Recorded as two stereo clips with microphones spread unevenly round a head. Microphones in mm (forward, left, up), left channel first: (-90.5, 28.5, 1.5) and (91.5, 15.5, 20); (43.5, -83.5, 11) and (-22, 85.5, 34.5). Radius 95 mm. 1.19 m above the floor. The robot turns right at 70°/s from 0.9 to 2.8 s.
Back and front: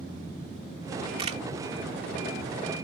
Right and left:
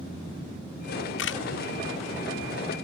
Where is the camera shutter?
70° right; by 1.4 s 50° right.